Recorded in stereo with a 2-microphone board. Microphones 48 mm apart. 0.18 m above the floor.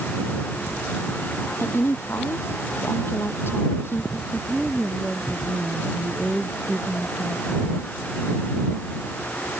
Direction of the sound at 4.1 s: 5° right (ahead or behind).